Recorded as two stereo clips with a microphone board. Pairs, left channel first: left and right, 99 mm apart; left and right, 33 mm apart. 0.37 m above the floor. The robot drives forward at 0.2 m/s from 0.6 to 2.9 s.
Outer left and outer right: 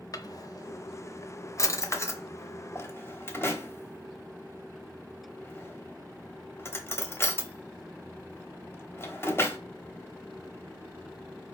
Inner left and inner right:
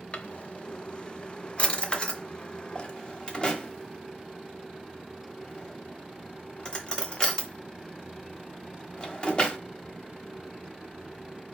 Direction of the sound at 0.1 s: 40° left (ahead or behind).